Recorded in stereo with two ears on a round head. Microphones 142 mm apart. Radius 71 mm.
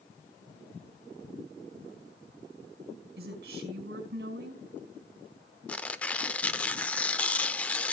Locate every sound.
3.2 s a woman speaking: 65° right (ahead or behind), 3.5 m
5.7 s tearing paper: 10° left (ahead or behind), 0.6 m